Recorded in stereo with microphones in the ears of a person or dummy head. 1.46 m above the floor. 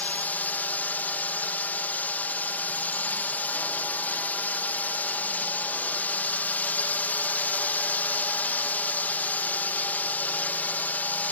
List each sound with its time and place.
0.0 s a drone: 5° left (ahead or behind)